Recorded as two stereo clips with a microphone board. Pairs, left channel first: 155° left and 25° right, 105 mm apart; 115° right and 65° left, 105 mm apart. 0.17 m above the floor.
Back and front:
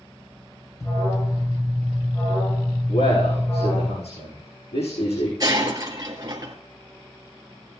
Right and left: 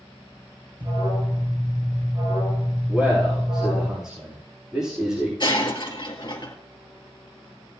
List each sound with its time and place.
0.8 s an alarm: 100° left, 5 m
2.9 s a man speaking: 150° left, 8.5 m
5.4 s breaking glass: 75° right, 1.9 m